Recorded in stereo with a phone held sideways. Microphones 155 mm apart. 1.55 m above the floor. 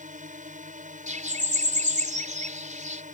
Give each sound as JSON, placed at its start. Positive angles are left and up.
{"t": 0.0, "sound": "a drone", "side_deg": -55}
{"t": 1.1, "sound": "a bird", "side_deg": -50}